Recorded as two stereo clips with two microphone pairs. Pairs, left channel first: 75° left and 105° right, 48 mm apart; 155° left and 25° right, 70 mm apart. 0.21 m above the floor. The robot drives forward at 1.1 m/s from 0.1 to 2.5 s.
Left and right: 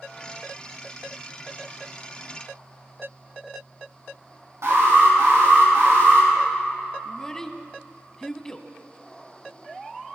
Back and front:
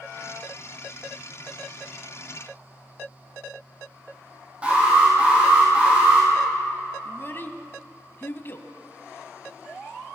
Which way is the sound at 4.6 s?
95° right.